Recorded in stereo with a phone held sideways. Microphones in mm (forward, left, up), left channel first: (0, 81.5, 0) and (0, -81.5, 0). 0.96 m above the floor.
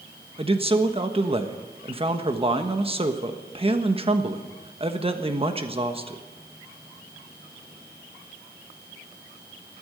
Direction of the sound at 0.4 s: 35° right (ahead or behind).